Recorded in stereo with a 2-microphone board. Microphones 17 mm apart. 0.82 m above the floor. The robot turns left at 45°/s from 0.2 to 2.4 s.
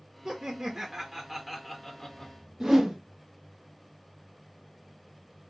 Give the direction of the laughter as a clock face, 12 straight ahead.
4 o'clock.